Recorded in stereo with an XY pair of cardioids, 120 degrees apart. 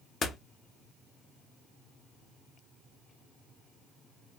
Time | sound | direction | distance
0.2 | a door slam | 40° left | 0.9 m